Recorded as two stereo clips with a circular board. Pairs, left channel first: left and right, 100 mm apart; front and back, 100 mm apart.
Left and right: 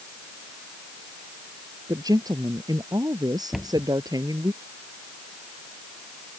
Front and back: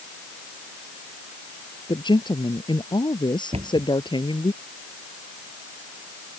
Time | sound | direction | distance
1.9 | a woman speaking | 40° right | ?
3.5 | a cupboard door | 175° right | ?